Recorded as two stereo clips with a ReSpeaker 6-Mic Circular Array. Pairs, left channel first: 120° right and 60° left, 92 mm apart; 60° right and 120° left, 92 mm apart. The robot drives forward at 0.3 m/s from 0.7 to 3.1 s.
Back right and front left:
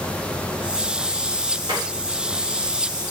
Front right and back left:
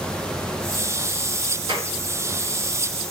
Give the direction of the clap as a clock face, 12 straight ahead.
9 o'clock.